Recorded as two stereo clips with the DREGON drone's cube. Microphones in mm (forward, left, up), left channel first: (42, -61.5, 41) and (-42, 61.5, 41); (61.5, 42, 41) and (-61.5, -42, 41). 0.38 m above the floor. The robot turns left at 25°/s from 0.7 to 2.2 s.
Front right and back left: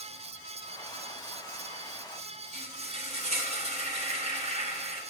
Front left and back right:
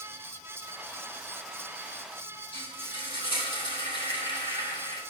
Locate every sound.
2.5 s frying: 85° left, 3 m